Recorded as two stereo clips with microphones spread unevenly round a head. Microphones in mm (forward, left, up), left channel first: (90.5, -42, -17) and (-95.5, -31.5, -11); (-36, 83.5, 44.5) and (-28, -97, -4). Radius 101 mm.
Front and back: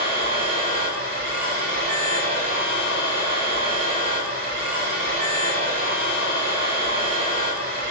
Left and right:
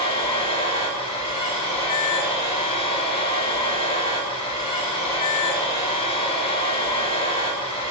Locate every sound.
0.0 s a machine running: 140° left, 1.3 m